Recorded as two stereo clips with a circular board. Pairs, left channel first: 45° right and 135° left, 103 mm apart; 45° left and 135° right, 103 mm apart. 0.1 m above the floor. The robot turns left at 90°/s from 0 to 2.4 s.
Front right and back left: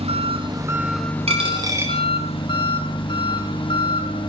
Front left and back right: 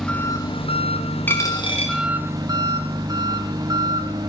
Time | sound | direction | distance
0.0 | an engine running | 135° left | 3 m
1.3 | a dropped coin | 115° left | 4.5 m